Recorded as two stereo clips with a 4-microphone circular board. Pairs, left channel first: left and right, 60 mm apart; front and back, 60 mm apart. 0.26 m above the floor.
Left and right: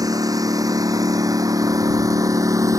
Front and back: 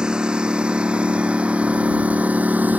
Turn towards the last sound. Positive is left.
turn(degrees=-115)